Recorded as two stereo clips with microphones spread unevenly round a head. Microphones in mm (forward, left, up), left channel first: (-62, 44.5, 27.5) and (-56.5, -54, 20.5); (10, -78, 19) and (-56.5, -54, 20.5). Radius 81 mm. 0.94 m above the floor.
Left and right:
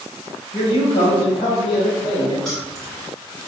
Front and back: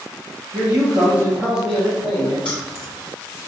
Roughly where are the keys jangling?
Ahead.